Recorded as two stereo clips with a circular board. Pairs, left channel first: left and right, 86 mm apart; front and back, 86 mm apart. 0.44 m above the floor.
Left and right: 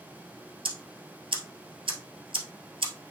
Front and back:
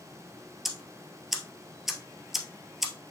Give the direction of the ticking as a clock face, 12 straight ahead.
3 o'clock.